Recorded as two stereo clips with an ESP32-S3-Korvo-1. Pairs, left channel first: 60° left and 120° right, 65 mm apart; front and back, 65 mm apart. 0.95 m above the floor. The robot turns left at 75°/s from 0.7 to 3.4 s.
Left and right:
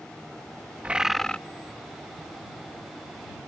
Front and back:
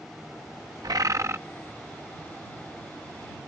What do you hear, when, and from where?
0.8 s a bird: 175° left; by 1.4 s 135° left